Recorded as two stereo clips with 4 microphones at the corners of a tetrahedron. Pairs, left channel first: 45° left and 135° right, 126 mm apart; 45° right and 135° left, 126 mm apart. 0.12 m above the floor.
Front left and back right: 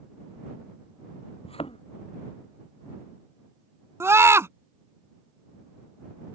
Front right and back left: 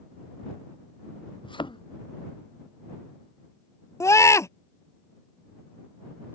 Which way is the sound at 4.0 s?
85° right.